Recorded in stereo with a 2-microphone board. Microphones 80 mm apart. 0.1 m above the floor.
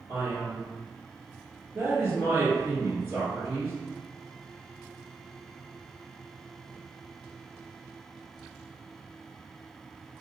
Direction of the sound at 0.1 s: 25° right (ahead or behind).